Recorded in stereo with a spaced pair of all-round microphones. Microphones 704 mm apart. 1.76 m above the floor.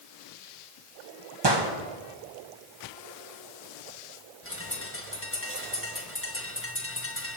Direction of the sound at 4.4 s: 20° left (ahead or behind).